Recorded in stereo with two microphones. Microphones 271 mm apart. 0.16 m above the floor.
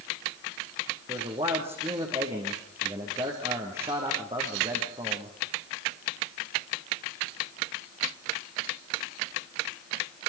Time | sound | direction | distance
1.1 | a man speaking | 25° right (ahead or behind) | 6 m